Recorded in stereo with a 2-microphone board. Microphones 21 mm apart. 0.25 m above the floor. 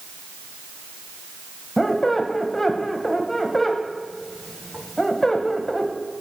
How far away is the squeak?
About 0.5 m.